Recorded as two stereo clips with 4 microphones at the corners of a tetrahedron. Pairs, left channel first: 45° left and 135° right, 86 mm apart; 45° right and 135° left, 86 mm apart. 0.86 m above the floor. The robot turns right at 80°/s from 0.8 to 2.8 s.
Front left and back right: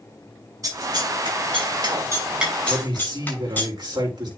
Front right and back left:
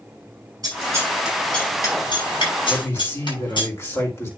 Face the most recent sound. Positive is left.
turn(degrees=-105)